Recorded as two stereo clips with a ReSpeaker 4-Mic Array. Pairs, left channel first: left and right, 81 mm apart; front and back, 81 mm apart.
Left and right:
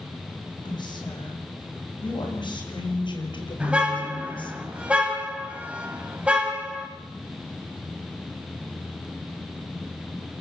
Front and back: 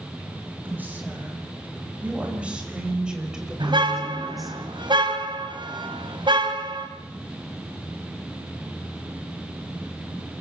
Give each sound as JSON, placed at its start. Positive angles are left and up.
{"t": 0.7, "sound": "a woman speaking", "azimuth_deg": 110, "distance_m": 6.5}
{"t": 3.6, "sound": "a car horn", "azimuth_deg": -165, "distance_m": 3.0}